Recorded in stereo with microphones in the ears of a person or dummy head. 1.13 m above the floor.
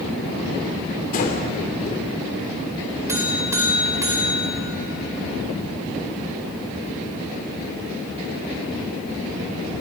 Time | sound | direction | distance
1.1 | breathing | 45° left (ahead or behind) | 3.5 m
3.1 | a buzzer | 15° right (ahead or behind) | 4.5 m